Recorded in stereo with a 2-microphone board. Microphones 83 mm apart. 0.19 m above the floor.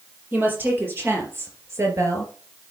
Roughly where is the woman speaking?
Right.